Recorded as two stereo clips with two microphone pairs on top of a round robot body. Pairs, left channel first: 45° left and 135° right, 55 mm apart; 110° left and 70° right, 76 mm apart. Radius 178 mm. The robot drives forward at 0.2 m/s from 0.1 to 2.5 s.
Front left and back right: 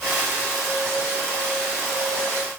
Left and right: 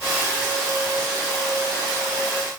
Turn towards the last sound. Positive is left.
No sound to turn to.